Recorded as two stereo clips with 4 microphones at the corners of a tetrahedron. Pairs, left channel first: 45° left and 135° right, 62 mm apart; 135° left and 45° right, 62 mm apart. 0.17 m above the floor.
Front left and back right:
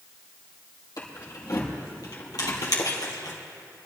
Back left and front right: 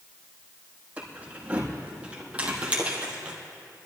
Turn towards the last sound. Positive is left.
turn(degrees=30)